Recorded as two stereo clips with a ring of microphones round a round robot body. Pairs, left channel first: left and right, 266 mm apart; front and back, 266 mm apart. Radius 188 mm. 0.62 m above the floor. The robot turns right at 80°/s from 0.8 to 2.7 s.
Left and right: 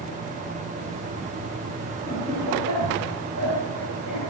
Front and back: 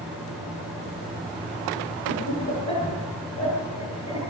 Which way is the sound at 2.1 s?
Straight behind.